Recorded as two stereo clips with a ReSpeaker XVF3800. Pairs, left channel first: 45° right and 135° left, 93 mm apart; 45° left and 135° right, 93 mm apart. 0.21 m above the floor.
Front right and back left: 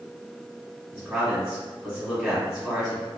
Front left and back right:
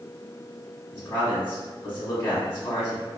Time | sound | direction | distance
0.9 | a man speaking | 80° left | 1.2 m